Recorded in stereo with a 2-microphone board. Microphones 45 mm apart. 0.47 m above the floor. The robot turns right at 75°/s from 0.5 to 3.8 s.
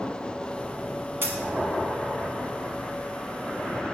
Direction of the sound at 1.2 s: 55° right (ahead or behind).